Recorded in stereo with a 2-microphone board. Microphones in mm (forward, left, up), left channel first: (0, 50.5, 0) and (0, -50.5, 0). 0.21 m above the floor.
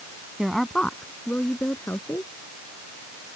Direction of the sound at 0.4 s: Centre (ahead or behind).